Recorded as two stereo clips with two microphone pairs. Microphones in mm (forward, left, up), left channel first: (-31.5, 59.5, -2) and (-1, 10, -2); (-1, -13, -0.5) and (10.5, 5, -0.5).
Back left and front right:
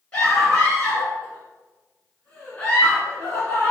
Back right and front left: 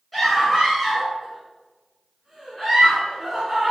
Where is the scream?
175° left, 1.5 m.